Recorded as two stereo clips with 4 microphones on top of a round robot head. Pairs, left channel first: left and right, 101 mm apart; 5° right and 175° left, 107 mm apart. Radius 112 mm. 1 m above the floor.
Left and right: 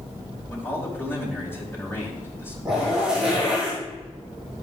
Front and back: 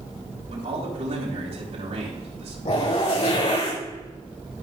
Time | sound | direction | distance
0.5 | a man speaking | 155° left | 6 m
2.6 | a zipper | 5° right | 6 m